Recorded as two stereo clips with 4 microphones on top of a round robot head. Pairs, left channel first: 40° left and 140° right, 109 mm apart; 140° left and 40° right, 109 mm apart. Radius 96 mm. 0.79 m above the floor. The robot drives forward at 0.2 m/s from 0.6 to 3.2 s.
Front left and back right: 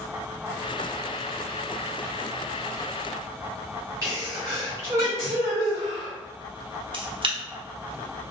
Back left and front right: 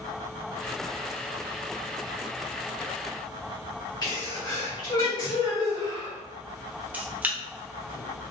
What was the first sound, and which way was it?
A sneeze, 170° left.